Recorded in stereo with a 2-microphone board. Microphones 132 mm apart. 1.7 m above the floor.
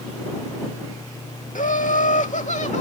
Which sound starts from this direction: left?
Laughter, at 1.6 s.